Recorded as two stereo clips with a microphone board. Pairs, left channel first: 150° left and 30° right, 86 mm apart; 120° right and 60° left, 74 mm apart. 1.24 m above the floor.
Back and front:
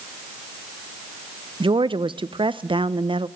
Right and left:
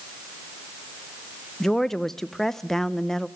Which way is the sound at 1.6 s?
35° right.